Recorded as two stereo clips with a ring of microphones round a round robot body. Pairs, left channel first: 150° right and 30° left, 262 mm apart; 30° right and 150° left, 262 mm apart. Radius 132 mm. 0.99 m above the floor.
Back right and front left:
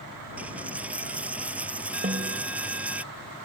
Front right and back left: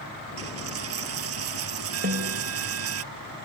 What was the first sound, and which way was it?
A dropped coin, 115° left.